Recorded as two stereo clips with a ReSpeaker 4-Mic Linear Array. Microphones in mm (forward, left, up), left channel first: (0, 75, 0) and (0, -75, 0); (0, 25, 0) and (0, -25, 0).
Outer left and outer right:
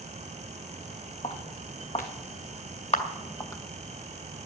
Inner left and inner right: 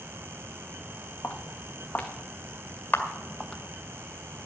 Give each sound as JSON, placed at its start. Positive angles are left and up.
{"t": 1.2, "sound": "footsteps", "side_deg": 45, "distance_m": 2.5}
{"t": 2.9, "sound": "a camera shutter", "side_deg": 50, "distance_m": 1.9}